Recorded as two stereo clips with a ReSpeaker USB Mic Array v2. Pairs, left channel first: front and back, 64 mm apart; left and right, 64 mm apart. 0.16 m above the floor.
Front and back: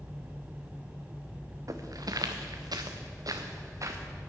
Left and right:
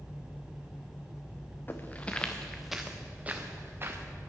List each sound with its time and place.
1.7 s footsteps: 150° left, 1.2 m; by 4.0 s 140° right, 1.6 m